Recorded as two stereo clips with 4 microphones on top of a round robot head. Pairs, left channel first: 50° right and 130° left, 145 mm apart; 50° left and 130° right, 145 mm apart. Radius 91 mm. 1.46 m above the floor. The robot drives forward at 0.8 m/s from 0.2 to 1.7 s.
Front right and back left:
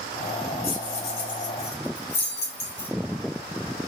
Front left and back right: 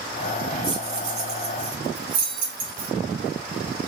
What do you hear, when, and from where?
0.6 s keys jangling: 75° right, 1.0 m; by 2.9 s 125° right, 1.2 m